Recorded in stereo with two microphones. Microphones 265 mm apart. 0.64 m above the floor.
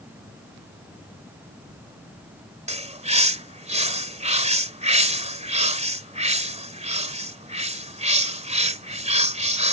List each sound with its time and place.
2.7 s a bird: 25° right (ahead or behind)